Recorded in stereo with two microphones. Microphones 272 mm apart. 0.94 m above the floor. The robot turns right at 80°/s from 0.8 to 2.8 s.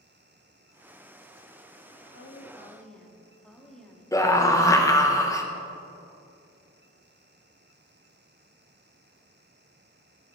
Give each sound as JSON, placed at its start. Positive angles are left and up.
{"t": 2.1, "sound": "a woman speaking", "azimuth_deg": 125, "distance_m": 1.4}
{"t": 4.1, "sound": "a scream", "side_deg": 10, "distance_m": 0.7}